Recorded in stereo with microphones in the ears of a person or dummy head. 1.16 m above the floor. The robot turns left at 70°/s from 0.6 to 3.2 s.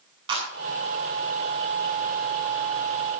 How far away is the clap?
About 8 m.